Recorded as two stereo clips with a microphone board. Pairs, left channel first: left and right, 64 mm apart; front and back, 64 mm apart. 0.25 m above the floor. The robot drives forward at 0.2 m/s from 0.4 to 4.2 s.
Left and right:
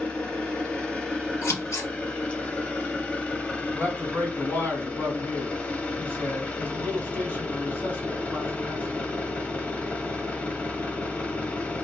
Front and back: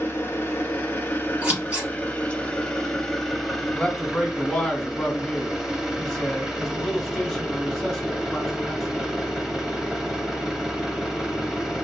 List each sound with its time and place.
0.0 s an engine running: 25° left, 1.0 m; by 11.8 s 110° left, 0.7 m
1.4 s scissors: 115° left, 1.7 m; by 1.9 s 120° left, 1.7 m
3.7 s a man speaking: 80° left, 1.4 m; by 9.1 s 85° left, 1.4 m